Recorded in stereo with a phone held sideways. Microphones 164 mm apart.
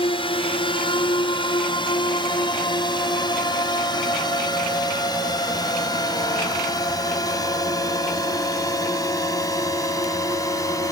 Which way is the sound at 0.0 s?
35° left (ahead or behind).